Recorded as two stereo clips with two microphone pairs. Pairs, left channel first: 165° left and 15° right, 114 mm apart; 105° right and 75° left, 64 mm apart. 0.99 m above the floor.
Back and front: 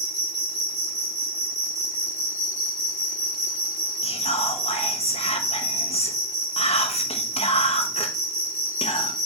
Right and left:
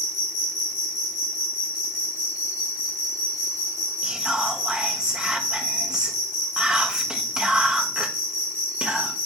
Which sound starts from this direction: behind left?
Whispering, at 4.0 s.